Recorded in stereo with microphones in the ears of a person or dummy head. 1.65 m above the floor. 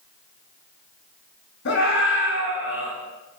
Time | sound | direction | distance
1.6 | a scream | 60° left (ahead or behind) | 7.5 m